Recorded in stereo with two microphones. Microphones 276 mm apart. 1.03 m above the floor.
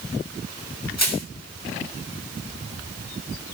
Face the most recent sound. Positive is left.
turn(degrees=70)  # may be behind; listen again after turning